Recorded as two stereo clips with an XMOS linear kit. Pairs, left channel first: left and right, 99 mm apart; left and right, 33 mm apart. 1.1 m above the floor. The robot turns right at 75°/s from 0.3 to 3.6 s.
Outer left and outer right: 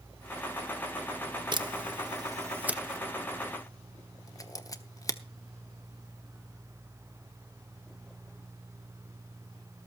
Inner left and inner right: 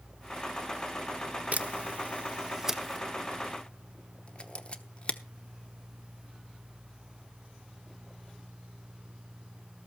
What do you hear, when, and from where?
1.5 s a camera shutter: 50° right (ahead or behind), 0.9 m; by 5.2 s 35° left (ahead or behind), 0.9 m